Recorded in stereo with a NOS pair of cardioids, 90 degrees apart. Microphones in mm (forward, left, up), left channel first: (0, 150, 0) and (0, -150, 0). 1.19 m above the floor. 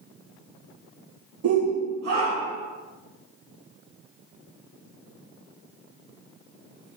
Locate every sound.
1.4 s a shout: 50° right, 0.8 m; by 2.7 s 60° right, 2.0 m